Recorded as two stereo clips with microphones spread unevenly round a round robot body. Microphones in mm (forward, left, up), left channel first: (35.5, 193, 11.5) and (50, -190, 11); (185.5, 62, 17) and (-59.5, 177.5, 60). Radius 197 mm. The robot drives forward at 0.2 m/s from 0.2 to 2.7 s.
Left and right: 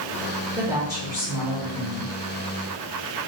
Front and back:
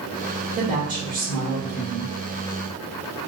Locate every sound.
0.6 s a woman speaking: 155° right, 1.0 m; by 2.1 s 165° right, 1.1 m